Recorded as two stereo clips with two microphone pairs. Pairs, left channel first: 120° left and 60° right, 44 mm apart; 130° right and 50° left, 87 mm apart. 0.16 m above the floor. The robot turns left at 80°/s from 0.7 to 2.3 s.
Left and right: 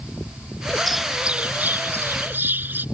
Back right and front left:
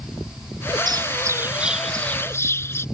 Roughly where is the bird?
Ahead left.